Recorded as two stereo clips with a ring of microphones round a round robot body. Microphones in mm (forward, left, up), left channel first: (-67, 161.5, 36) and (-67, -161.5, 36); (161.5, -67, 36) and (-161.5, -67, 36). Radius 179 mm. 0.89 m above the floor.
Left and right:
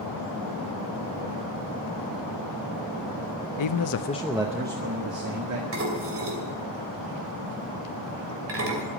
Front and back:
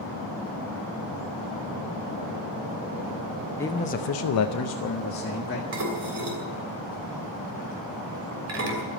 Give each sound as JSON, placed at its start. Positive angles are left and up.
{"t": 3.6, "sound": "a man speaking", "azimuth_deg": 85, "distance_m": 0.9}
{"t": 5.7, "sound": "dishes clattering", "azimuth_deg": -135, "distance_m": 3.0}